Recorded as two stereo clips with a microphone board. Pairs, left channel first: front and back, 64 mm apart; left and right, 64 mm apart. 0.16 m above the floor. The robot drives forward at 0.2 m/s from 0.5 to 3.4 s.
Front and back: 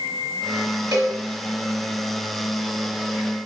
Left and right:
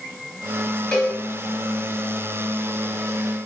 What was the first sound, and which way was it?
A cowbell, 165° left.